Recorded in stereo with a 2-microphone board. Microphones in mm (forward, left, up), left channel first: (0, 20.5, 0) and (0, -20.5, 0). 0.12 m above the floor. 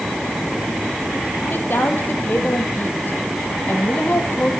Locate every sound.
1.5 s a woman speaking: 55° left (ahead or behind), 4 m